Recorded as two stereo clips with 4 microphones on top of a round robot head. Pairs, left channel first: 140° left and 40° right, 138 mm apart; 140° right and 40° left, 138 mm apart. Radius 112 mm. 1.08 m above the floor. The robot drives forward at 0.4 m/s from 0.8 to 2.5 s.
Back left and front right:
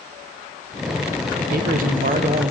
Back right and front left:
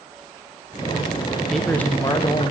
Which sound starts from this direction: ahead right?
A man speaking, at 1.4 s.